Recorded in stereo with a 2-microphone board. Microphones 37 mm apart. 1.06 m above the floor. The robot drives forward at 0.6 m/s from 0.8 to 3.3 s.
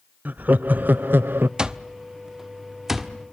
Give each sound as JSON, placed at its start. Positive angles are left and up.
{"t": 0.2, "sound": "laughter", "side_deg": -55, "distance_m": 0.6}
{"t": 1.6, "sound": "an alarm clock", "side_deg": -25, "distance_m": 0.7}